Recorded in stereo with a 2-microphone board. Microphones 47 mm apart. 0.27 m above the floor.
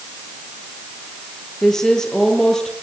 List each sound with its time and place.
1.6 s a woman speaking: 10° left (ahead or behind), 8 m